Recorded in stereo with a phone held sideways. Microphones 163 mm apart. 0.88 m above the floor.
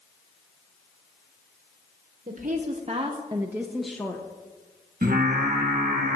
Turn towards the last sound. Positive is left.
turn(degrees=-60)  # may be behind; listen again after turning